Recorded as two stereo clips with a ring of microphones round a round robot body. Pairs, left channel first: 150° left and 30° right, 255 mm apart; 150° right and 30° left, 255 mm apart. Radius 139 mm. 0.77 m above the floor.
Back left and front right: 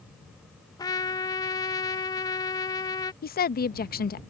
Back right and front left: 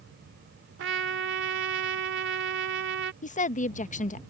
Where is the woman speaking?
170° left.